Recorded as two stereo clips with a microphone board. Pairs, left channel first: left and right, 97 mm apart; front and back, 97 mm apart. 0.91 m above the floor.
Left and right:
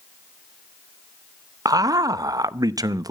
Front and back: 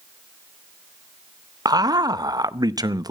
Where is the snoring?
No snoring in this recording.